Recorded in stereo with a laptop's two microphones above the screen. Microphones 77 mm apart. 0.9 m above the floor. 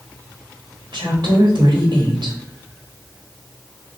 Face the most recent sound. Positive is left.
turn(degrees=-60)  # may be behind; listen again after turning